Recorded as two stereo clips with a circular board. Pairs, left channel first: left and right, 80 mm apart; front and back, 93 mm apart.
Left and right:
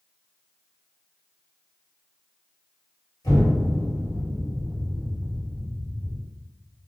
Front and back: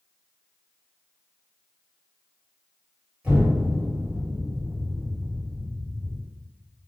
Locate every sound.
3.2 s an explosion: 105° left, 1.3 m